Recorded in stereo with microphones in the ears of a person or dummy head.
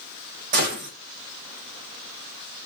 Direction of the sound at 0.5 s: 50° right (ahead or behind).